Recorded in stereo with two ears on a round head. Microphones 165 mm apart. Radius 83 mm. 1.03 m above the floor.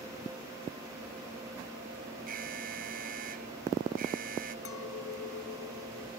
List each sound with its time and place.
2.3 s an alarm: 50° right (ahead or behind)
4.7 s a clink: 90° left